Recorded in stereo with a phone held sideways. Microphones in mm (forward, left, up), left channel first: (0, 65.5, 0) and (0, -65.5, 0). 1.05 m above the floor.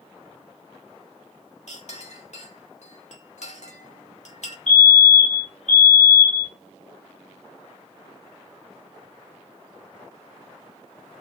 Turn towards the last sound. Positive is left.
turn(degrees=65)  # may be behind; listen again after turning